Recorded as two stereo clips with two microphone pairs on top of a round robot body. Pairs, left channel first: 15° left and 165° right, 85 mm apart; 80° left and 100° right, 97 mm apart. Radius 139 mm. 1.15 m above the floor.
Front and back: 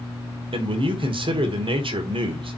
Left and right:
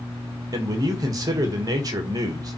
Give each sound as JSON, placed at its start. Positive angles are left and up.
{"t": 0.5, "sound": "a man speaking", "azimuth_deg": -155, "distance_m": 1.7}